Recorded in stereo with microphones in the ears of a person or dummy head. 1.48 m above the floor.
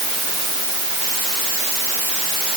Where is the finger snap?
No finger snap in this recording.